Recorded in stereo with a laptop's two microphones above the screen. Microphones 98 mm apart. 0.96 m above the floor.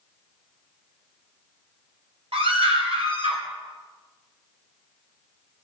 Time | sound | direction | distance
2.3 | a scream | 75° right (ahead or behind) | 3.5 m